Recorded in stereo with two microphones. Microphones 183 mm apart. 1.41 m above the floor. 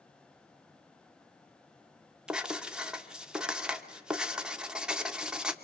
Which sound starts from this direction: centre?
Writing, at 2.3 s.